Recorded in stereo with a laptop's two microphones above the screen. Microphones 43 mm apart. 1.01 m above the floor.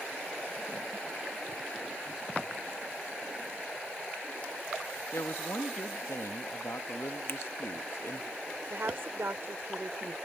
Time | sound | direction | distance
5.1 | a woman speaking | 70° left (ahead or behind) | ?
7.3 | a finger snap | 55° left (ahead or behind) | ?
8.7 | a woman speaking | 60° right (ahead or behind) | ?